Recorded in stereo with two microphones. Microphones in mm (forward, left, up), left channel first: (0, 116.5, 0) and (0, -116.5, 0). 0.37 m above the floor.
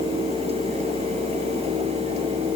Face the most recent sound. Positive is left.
No sound to turn to.